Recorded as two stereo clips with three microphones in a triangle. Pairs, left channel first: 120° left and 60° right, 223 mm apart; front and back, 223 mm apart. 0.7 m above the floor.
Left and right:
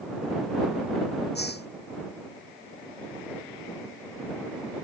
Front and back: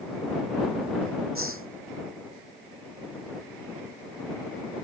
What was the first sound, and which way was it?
A hiss, 160° left.